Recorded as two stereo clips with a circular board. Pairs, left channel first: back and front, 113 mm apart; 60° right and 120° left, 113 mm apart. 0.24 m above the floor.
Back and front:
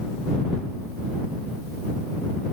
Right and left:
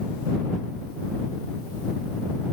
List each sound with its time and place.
Only background noise.